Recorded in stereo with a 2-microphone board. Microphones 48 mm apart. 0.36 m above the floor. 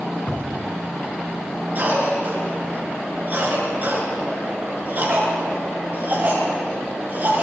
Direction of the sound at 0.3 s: 35° left (ahead or behind).